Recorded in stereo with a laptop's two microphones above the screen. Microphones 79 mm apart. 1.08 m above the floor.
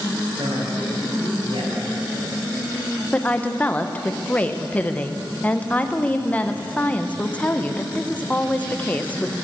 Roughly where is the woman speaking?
Centre.